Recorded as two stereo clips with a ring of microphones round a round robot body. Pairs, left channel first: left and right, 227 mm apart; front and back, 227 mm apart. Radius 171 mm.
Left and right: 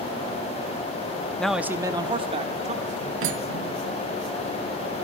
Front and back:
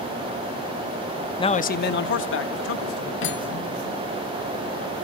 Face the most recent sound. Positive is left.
turn(degrees=-50)